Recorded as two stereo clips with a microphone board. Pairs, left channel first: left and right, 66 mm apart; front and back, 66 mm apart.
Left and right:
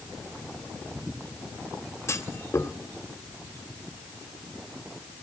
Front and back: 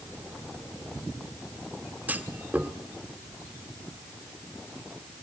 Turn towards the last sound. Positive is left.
turn(degrees=125)